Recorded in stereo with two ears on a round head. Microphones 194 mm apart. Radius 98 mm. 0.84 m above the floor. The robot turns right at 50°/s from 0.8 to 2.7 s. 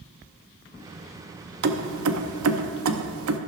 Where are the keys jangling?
50° right (ahead or behind), 0.7 m; by 3.4 s 70° right (ahead or behind), 0.7 m.